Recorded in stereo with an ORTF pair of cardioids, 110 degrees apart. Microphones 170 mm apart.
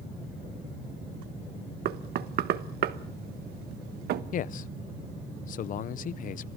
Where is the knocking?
70° right, 1.2 m.